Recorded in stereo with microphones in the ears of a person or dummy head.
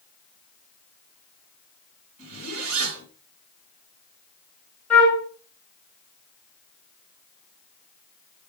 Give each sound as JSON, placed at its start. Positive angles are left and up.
{"t": 2.2, "sound": "a zipper", "side_deg": -30, "distance_m": 6.0}
{"t": 4.9, "sound": "a flute", "side_deg": 0, "distance_m": 2.5}